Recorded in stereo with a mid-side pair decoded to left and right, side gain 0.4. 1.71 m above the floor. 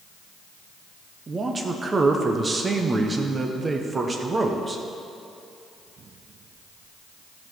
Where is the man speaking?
35° right, 1.0 m.